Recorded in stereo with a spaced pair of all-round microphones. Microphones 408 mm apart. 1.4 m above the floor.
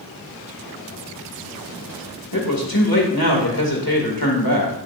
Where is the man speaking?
55° left (ahead or behind), 2 m.